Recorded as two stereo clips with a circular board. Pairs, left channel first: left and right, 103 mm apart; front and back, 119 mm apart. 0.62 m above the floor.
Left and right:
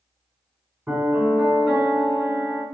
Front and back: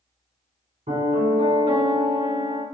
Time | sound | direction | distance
0.9 | a piano | 170° right | 4.5 m